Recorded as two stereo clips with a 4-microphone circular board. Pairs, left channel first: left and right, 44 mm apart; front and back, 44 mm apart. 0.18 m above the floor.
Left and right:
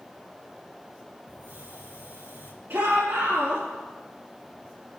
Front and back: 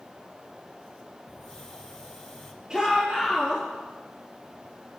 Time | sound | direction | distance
1.3 | a hiss | 80° right | 7 m
2.7 | a shout | 110° right | 4.5 m